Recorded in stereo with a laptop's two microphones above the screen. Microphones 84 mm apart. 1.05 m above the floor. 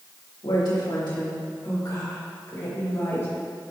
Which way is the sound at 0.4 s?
70° left (ahead or behind).